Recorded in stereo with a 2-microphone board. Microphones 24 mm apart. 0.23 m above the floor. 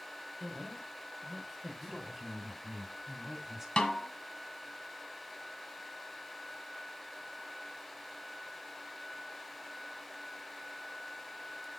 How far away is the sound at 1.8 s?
About 2.0 m.